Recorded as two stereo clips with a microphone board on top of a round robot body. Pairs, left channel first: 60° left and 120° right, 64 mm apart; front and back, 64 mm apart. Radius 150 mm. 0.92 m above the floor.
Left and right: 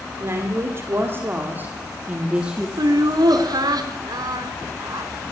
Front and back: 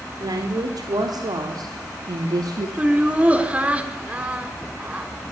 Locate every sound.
0.2 s a woman speaking: 165° right, 4 m; by 2.7 s 165° left, 3 m
2.8 s laughter: 110° right, 4 m